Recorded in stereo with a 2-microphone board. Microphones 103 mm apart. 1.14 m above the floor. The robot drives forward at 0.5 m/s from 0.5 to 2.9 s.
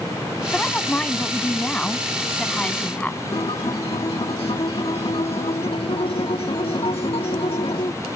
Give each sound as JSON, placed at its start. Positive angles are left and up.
{"t": 0.5, "sound": "a woman speaking", "side_deg": 10}
{"t": 3.3, "sound": "a guitar", "side_deg": 65}